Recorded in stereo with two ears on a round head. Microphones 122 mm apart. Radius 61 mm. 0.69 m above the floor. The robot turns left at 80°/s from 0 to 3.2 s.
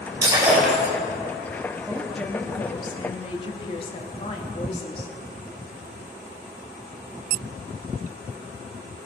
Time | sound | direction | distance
0.2 | breaking glass | 145° right | 4 m
1.9 | a woman speaking | 165° right | 1.3 m